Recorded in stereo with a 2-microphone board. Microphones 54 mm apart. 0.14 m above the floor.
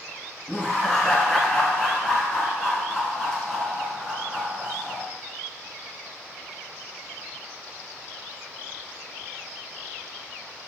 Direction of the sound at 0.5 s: 10° left (ahead or behind).